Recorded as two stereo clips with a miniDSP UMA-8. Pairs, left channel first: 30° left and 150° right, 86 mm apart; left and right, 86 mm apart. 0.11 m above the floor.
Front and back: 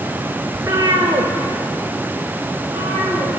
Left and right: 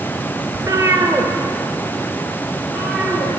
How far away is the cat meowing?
About 0.7 m.